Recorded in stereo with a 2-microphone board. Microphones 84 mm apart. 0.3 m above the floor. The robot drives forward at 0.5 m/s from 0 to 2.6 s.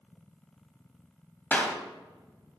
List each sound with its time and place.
1.5 s a clap: 20° left (ahead or behind), 1.2 m